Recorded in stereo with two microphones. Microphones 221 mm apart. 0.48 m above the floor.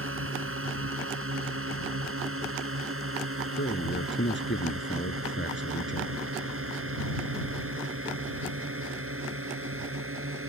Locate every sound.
0.0 s a drone: 75° right (ahead or behind)
3.6 s a man speaking: 60° left (ahead or behind)